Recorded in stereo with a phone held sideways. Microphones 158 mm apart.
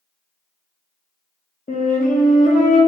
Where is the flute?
55° left (ahead or behind), 0.7 m.